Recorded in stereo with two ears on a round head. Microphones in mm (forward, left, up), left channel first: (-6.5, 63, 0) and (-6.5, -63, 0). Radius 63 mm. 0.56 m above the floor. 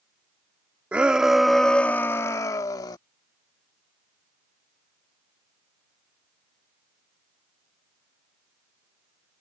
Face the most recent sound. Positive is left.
turn(degrees=25)  # may be behind; listen again after turning